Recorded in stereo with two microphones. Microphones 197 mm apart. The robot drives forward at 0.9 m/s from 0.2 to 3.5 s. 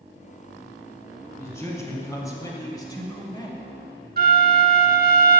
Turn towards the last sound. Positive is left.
turn(degrees=-55)  # may be behind; listen again after turning